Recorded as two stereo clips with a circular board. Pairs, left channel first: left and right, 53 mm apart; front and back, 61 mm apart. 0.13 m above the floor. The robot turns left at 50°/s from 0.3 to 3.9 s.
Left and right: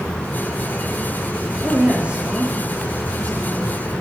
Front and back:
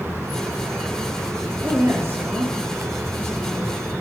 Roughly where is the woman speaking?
Behind right.